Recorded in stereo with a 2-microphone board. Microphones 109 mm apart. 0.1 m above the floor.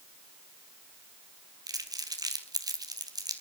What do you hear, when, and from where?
1.7 s crumpling: 35° right (ahead or behind), 1.8 m